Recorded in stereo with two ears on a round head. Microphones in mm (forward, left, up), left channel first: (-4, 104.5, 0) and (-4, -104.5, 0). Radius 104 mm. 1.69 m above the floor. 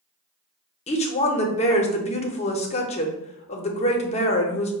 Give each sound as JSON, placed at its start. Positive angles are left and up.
{"t": 0.9, "sound": "a woman speaking", "side_deg": 30, "distance_m": 0.6}